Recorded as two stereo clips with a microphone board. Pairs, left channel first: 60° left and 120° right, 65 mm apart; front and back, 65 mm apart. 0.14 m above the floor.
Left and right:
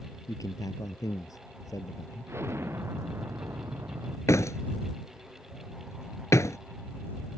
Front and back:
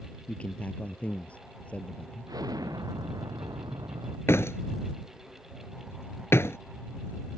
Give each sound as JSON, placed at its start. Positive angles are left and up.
{"t": 0.3, "sound": "a man speaking", "azimuth_deg": 70}
{"t": 2.3, "sound": "an explosion", "azimuth_deg": -170}
{"t": 4.3, "sound": "a door slam", "azimuth_deg": 35}